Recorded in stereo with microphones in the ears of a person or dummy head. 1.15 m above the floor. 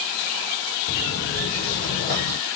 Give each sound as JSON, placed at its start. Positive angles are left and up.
{"t": 0.9, "sound": "footsteps", "side_deg": 50, "distance_m": 1.8}